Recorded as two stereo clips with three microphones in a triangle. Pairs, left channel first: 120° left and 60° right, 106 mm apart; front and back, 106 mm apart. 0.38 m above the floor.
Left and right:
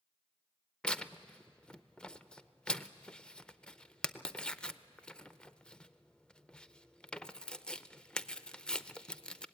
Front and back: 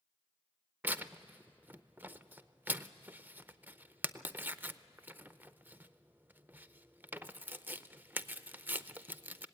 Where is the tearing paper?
Straight behind, 0.6 m.